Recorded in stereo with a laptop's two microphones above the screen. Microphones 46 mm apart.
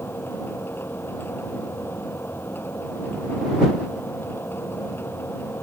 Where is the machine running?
55° left (ahead or behind).